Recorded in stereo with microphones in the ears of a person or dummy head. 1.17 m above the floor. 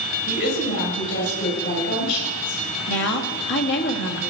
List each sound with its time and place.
0.3 s a woman speaking: 55° left (ahead or behind), 7.5 m
2.9 s a woman speaking: 60° left (ahead or behind), 1.9 m